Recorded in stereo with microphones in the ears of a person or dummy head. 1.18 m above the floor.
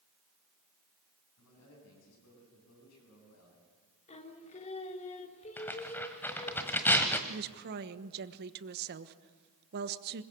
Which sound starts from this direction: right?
A woman speaking, at 7.3 s.